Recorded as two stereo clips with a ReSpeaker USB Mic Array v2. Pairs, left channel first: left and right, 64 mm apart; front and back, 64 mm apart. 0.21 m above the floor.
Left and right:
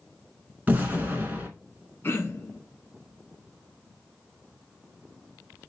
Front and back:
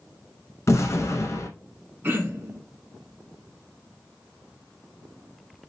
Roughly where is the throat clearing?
Behind left.